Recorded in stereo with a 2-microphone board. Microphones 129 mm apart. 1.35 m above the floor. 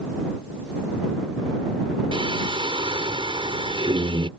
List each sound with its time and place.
2.1 s singing: 45° right (ahead or behind)